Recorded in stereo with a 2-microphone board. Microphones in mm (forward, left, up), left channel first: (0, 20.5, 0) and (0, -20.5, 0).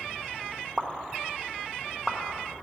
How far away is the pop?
About 0.9 m.